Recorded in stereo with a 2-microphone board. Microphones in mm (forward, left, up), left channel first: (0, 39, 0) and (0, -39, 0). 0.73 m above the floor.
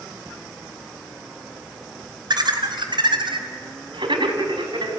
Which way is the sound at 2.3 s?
60° right (ahead or behind).